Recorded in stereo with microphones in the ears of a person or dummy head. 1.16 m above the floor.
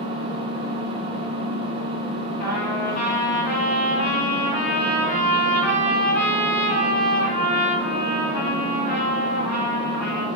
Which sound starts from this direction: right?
An engine running, at 0.0 s.